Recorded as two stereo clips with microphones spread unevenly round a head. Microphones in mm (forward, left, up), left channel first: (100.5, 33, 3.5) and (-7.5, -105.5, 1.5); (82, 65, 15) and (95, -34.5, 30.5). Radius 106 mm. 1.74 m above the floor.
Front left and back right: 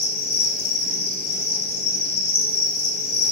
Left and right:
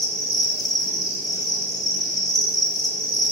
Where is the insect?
50° left, 2.5 m.